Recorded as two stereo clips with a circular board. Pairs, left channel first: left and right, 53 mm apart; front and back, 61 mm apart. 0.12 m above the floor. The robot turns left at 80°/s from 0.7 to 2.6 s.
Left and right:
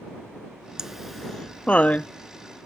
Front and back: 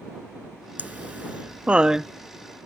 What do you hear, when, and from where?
0.8 s laughter: 155° right; by 2.1 s 100° left